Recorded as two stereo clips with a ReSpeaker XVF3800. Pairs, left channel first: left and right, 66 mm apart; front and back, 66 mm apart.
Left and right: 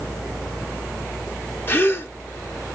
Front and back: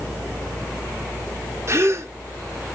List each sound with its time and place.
1.7 s a gasp: 145° left, 0.6 m